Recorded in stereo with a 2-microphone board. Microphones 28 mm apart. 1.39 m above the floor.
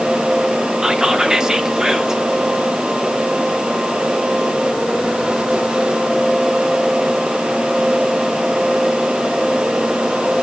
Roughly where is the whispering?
Right.